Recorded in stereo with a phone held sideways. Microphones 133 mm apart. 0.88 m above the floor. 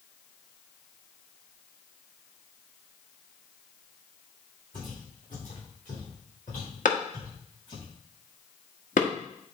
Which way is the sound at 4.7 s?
80° left.